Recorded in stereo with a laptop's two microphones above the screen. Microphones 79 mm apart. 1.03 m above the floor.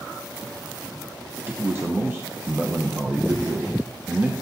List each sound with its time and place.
1.5 s a man speaking: 30° right (ahead or behind), 0.9 m